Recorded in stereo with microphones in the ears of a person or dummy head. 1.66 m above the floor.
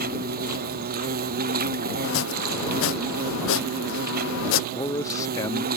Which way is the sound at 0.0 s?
45° right (ahead or behind).